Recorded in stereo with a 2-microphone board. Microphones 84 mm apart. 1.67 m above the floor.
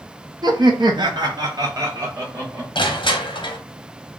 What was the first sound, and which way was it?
Laughter, 55° right (ahead or behind).